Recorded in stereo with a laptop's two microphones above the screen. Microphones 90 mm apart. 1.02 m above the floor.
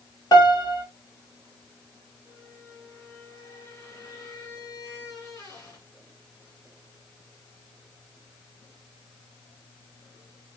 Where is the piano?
40° left (ahead or behind), 1.3 m.